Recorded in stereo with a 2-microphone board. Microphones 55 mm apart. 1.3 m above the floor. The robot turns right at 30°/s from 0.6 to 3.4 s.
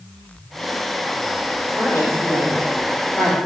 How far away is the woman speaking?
About 4 m.